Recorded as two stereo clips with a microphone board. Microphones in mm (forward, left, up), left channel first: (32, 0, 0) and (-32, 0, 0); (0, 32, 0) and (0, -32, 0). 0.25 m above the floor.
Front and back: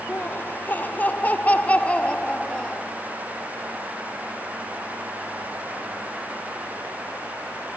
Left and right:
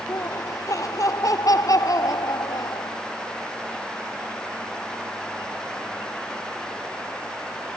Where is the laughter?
55° left; by 2.9 s 75° left.